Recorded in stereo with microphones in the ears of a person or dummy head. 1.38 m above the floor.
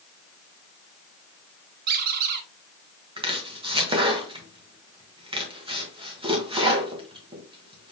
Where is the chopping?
30° right (ahead or behind), 1.0 m.